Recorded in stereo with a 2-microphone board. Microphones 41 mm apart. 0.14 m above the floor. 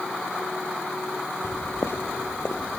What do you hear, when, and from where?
1.4 s footsteps: 75° left (ahead or behind), 0.9 m; by 2.8 s 80° left, 1.6 m